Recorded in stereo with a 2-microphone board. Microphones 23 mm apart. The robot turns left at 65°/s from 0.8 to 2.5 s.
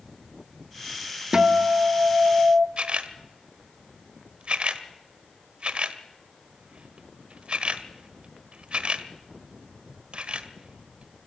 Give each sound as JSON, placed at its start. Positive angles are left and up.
{"t": 1.3, "sound": "a guitar", "azimuth_deg": -35, "distance_m": 1.2}
{"t": 2.8, "sound": "a camera shutter", "side_deg": -50, "distance_m": 1.4}